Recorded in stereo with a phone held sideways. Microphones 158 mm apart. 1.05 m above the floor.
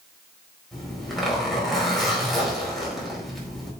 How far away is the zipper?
About 4 m.